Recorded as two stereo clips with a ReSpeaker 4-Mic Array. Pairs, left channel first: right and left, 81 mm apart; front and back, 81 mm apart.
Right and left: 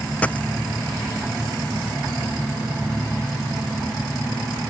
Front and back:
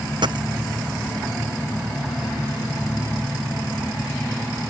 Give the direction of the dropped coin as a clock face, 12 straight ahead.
5 o'clock.